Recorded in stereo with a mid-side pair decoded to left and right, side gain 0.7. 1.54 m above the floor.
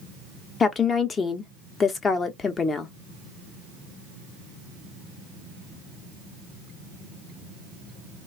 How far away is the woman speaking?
About 0.8 m.